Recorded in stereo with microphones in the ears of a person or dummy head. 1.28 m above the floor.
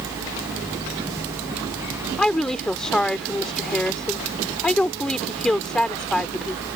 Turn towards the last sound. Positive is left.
turn(degrees=10)  # may be behind; listen again after turning